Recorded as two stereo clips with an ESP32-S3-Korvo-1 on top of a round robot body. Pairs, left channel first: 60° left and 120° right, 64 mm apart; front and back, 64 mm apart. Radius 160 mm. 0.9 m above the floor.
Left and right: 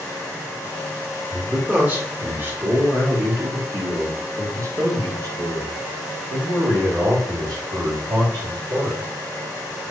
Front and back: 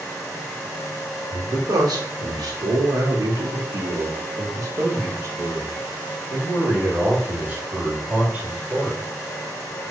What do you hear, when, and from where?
1.3 s a man speaking: 175° left, 3 m; by 9.0 s 110° right, 3.5 m